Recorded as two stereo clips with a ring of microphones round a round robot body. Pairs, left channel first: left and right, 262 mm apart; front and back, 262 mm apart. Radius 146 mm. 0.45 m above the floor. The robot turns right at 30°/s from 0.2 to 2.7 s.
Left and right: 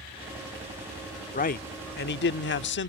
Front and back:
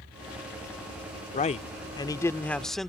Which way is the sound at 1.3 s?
45° left.